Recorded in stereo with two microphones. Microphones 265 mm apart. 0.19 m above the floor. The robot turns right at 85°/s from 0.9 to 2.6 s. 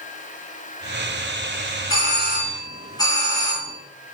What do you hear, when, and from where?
1.9 s a doorbell: 100° left, 3 m; by 3.7 s 160° left, 3 m